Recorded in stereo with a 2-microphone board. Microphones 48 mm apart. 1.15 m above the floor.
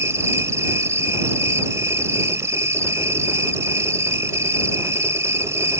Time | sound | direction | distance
0.0 | an insect | 75° right (ahead or behind) | ?